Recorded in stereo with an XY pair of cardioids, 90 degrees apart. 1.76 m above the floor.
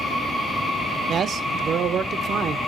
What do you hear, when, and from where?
1.1 s a man speaking: 65° right, 0.7 m